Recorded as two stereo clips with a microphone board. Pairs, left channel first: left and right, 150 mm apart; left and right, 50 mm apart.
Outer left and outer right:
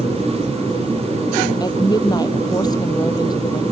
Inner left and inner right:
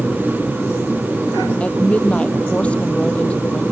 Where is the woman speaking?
25° left (ahead or behind).